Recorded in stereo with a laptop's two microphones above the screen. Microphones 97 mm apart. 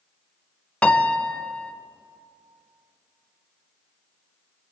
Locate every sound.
0.8 s a piano: 10° left (ahead or behind), 0.6 m